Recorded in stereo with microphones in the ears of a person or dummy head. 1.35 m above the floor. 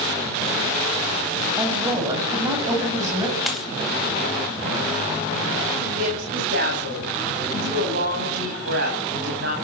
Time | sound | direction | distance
1.6 | a woman speaking | 20° right (ahead or behind) | 9 m
3.5 | a dropped coin | centre (ahead or behind) | 1.6 m
6.0 | a woman speaking | 65° right (ahead or behind) | 9 m